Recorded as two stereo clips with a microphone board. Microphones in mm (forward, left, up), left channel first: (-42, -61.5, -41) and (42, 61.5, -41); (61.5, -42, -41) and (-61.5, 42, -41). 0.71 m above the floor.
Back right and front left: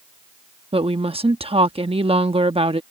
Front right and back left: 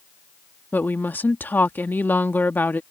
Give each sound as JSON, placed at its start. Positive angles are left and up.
{"t": 0.7, "sound": "a woman speaking", "azimuth_deg": 35}